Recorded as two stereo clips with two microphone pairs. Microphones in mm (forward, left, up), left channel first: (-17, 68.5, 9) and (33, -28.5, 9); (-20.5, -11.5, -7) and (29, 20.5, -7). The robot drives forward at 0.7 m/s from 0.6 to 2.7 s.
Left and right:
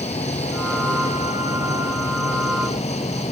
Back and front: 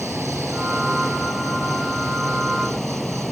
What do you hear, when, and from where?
0.0 s an insect: 120° left; by 3.3 s 125° left